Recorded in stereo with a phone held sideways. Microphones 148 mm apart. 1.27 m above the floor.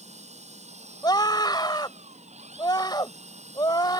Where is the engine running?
50° right (ahead or behind).